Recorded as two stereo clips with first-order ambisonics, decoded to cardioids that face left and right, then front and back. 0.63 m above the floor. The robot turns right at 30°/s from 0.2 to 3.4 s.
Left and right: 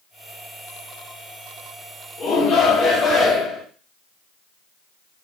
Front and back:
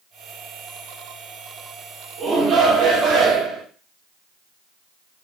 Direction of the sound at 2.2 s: 125° left.